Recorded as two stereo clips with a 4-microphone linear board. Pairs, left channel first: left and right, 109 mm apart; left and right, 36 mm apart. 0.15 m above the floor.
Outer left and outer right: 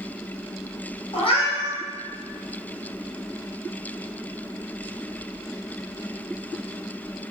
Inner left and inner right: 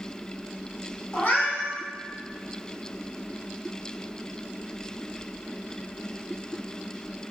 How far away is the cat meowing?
About 1.5 m.